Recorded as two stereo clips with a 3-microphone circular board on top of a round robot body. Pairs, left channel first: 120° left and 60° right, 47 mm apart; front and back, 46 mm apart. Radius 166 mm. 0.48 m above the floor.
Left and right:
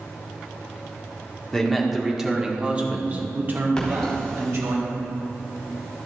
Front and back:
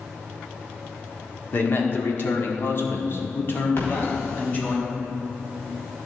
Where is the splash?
40° left, 3.5 m.